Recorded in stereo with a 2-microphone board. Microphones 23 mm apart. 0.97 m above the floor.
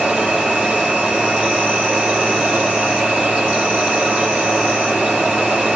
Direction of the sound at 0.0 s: 65° right (ahead or behind).